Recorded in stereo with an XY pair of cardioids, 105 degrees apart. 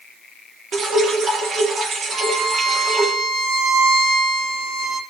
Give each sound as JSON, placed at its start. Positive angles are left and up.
{"t": 0.7, "sound": "dripping", "azimuth_deg": -50, "distance_m": 3.5}
{"t": 2.1, "sound": "a violin", "azimuth_deg": -60, "distance_m": 1.6}